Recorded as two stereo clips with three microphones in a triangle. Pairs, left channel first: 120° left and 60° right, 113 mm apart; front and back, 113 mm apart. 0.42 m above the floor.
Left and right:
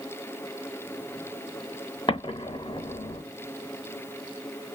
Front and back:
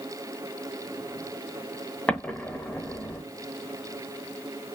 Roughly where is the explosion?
Left.